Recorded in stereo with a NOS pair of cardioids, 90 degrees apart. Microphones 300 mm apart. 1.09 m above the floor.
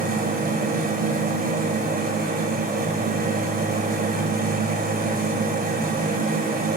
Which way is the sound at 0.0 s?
30° right.